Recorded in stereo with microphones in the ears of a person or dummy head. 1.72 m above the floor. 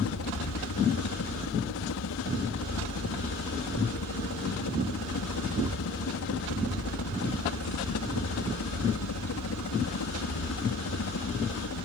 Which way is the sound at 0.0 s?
70° left (ahead or behind).